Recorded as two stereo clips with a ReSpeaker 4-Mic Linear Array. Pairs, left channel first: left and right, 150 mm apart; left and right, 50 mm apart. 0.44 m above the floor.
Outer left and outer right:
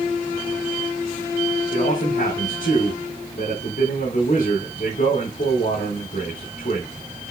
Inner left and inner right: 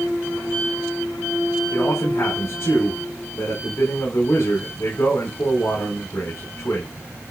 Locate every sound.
1.7 s a man speaking: 60° left (ahead or behind), 4 m